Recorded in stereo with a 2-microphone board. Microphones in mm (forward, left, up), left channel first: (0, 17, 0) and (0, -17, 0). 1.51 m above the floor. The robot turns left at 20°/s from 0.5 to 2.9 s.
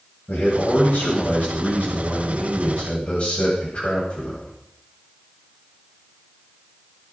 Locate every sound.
0.3 s a man speaking: 95° left, 8 m; by 4.5 s 45° left, 8 m